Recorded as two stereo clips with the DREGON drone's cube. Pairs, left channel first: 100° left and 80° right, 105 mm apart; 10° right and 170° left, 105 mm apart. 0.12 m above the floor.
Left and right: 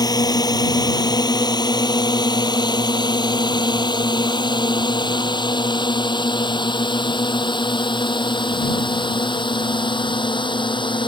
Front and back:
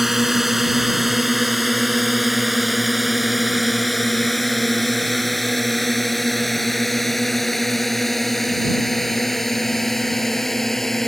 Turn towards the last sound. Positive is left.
turn(degrees=75)